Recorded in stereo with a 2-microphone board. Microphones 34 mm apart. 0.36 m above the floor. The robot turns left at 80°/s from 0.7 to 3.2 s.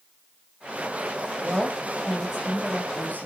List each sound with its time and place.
1.4 s a woman speaking: 105° right, 2 m; by 3.3 s 115° left, 2 m